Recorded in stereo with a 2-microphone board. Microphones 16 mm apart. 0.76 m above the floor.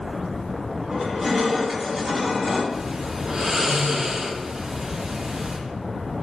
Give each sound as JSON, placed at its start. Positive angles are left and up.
{"t": 0.9, "sound": "crushing", "side_deg": -15, "distance_m": 1.4}
{"t": 2.7, "sound": "snoring", "side_deg": -45, "distance_m": 0.6}